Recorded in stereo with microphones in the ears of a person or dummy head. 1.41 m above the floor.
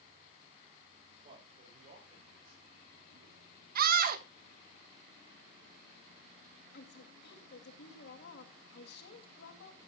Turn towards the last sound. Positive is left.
turn(degrees=65)  # may be behind; listen again after turning